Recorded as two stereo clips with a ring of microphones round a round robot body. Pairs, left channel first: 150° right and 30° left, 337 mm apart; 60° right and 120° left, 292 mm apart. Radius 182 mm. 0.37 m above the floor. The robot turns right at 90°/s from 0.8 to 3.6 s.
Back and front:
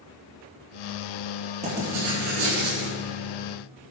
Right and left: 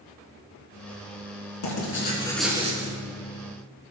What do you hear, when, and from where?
1.6 s writing: 40° right, 5.5 m; by 3.0 s 80° left, 5.5 m